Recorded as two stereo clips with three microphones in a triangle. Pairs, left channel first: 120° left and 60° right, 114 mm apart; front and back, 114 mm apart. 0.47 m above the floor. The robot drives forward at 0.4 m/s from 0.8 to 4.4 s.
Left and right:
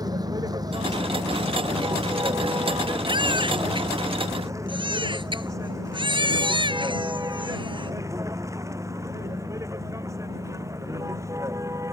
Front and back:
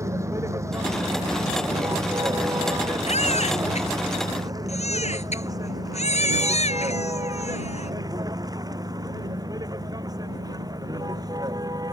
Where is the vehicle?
115° right; by 11.9 s 125° right.